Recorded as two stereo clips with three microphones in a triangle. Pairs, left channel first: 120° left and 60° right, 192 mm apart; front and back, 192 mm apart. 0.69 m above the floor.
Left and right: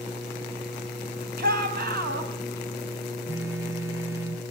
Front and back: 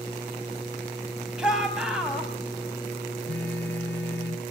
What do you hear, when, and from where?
1.4 s a shout: 95° right, 5 m
3.3 s a phone buzzing: 20° left, 2.5 m